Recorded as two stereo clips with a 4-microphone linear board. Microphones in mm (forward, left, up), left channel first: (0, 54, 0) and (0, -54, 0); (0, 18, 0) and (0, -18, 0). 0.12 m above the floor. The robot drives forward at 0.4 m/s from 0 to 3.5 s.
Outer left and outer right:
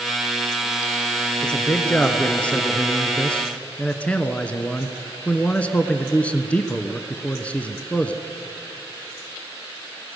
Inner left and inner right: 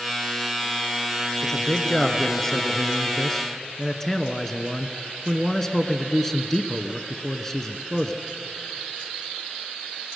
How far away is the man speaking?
About 1.7 m.